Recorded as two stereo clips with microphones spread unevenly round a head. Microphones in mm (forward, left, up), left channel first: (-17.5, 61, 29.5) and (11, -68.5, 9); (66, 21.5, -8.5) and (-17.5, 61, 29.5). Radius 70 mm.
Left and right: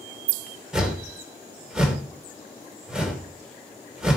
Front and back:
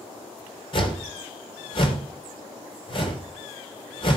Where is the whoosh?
10° left, 3 m.